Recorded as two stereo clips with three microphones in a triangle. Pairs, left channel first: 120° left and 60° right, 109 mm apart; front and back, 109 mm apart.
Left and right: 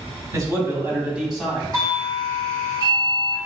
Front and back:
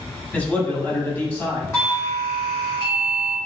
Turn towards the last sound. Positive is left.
turn(degrees=-40)